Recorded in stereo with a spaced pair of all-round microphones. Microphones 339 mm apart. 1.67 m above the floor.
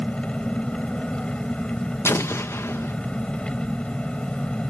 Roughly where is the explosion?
Centre.